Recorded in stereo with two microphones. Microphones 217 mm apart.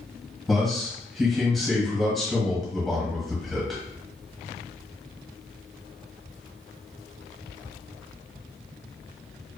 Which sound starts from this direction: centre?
A man speaking, at 0.5 s.